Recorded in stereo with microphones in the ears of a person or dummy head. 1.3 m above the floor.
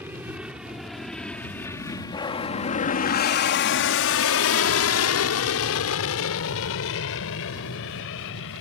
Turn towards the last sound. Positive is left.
turn(degrees=65)  # may be behind; listen again after turning